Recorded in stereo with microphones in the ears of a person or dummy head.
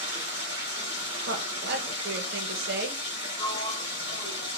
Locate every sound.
0.0 s running water: 25° right (ahead or behind), 2.0 m
1.3 s a woman speaking: 60° right (ahead or behind), 1.0 m
3.4 s a sliding door: 25° left (ahead or behind), 2 m